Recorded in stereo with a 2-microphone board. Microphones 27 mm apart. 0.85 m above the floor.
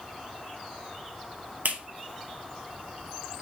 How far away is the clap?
About 1.1 m.